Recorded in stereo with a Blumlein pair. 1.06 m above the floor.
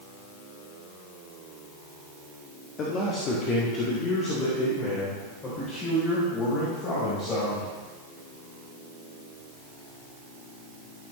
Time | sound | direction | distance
2.8 | a man speaking | 30° left | 1.6 m